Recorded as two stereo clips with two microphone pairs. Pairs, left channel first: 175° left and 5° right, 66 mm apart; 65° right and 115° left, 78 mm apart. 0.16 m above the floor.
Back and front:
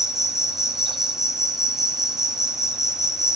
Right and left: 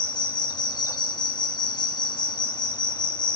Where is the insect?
85° right, 0.7 m.